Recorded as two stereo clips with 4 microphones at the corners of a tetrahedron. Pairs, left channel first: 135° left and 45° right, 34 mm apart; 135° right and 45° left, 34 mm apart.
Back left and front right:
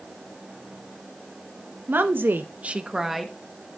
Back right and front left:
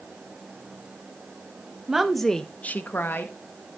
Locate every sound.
1.9 s a woman speaking: 35° right, 1.1 m; by 3.3 s 135° right, 1.3 m